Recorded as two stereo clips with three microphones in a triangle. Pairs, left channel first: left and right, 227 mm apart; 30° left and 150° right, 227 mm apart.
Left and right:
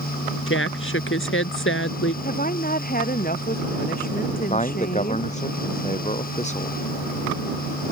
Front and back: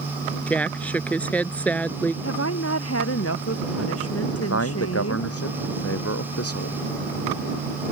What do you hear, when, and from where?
0.5 s a woman speaking: 115° left
2.2 s a woman speaking: 40° left
4.3 s a man speaking: 30° left